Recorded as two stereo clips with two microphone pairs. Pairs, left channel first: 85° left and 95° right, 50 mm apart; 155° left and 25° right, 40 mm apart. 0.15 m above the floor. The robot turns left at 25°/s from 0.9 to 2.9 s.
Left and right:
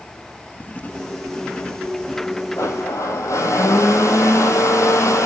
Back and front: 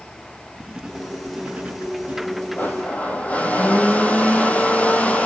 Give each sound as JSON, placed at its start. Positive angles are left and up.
{"t": 0.6, "sound": "writing", "azimuth_deg": 50, "distance_m": 1.6}
{"t": 2.6, "sound": "a blender", "azimuth_deg": 110, "distance_m": 1.8}